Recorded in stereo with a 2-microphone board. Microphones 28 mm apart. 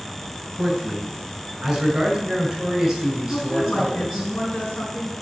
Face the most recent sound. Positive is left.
turn(degrees=75)  # may be behind; listen again after turning